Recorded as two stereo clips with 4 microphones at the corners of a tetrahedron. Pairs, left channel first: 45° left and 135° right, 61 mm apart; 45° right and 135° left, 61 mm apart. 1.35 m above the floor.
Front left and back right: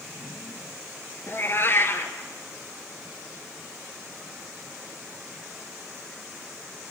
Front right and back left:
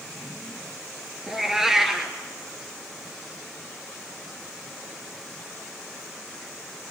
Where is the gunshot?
I don't hear a gunshot.